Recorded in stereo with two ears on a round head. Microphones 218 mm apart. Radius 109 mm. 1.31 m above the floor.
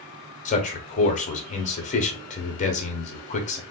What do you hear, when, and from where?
0.5 s a man speaking: 30° left (ahead or behind), 0.8 m